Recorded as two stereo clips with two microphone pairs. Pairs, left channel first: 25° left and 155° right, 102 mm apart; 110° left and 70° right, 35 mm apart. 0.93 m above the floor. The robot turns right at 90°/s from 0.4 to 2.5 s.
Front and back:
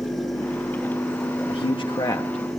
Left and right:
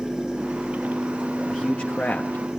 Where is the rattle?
No rattle in this recording.